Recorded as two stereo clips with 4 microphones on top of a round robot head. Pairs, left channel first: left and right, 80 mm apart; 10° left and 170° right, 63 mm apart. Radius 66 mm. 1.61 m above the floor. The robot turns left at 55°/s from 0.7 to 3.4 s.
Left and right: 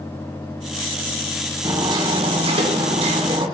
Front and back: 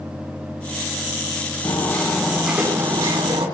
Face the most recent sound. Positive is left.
turn(degrees=-135)